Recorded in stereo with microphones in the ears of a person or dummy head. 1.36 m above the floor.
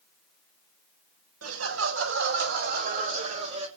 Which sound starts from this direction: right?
Laughter, at 1.4 s.